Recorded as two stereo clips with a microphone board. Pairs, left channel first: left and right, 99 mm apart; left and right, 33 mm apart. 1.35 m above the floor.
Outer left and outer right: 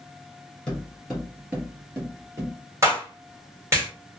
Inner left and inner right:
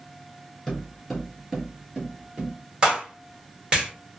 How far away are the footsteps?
About 1.5 m.